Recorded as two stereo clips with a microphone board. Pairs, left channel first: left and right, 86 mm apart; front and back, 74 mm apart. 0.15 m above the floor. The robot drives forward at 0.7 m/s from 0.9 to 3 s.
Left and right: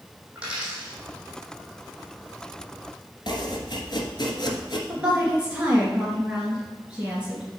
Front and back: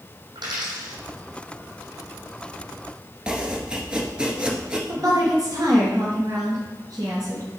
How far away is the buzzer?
No buzzer in this recording.